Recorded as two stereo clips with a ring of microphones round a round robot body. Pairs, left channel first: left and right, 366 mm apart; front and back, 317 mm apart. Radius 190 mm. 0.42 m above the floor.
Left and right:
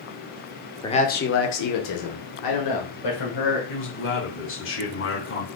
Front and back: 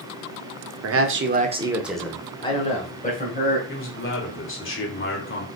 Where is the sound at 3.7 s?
40° left, 1.9 m.